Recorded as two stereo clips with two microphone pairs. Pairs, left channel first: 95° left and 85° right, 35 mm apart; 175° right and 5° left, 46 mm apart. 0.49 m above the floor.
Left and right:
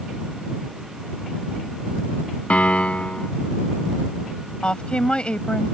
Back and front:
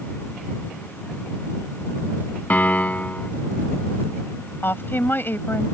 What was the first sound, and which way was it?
A piano, 140° left.